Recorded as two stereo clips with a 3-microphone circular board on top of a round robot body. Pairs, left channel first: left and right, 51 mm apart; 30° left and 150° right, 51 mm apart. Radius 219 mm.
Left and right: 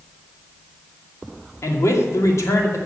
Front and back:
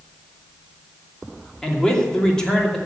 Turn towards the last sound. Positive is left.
turn(degrees=110)